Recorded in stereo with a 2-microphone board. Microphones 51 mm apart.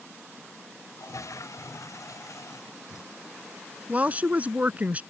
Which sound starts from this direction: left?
A toilet flushing, at 1.0 s.